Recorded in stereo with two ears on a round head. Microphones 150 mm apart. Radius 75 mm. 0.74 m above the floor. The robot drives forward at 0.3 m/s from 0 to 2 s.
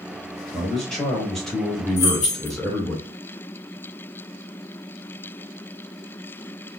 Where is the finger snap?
No finger snap in this recording.